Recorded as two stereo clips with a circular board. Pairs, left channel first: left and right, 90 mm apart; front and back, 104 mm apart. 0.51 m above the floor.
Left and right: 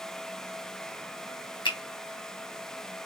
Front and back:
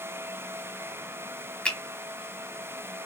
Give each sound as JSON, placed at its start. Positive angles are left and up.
{"t": 1.6, "sound": "a finger snap", "azimuth_deg": 80, "distance_m": 1.5}